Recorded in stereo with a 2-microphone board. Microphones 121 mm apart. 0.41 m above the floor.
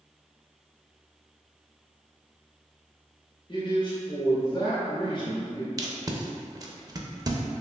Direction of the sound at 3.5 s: 40° left (ahead or behind).